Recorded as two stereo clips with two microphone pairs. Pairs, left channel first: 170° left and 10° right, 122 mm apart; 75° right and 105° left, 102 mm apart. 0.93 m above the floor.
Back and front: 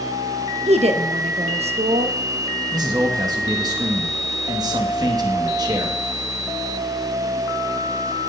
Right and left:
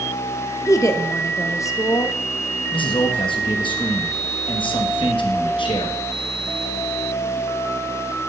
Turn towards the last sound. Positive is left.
turn(degrees=-60)